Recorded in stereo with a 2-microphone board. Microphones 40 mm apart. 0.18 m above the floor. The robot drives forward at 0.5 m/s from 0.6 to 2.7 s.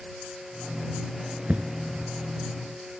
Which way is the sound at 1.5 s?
40° right (ahead or behind).